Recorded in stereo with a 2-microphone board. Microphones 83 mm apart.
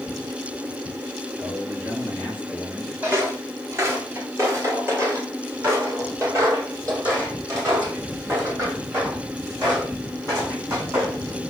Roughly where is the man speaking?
Right.